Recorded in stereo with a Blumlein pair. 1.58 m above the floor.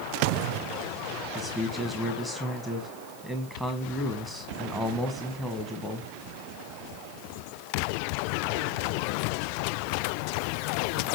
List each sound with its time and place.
1.4 s a man speaking: straight ahead, 1.4 m